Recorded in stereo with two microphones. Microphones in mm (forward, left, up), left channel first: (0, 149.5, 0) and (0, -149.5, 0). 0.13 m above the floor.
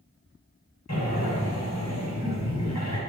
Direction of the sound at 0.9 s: 60° left (ahead or behind).